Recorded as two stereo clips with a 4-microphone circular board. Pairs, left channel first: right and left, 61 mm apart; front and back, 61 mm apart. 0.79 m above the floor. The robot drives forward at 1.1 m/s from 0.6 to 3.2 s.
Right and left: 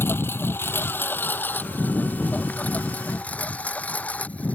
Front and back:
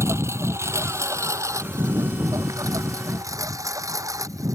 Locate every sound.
0.0 s a lawn mower: 140° right; by 4.5 s 155° right